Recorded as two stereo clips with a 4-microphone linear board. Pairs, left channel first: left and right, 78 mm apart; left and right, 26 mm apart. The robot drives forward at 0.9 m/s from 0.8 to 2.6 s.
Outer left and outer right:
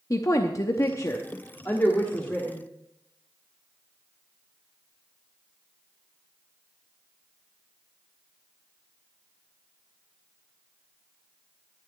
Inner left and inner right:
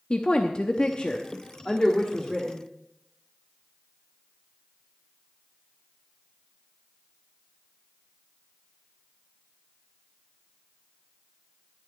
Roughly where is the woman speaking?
Left.